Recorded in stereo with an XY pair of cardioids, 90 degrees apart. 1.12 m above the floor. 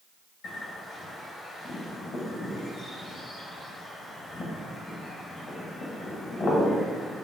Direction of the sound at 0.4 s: 70° left.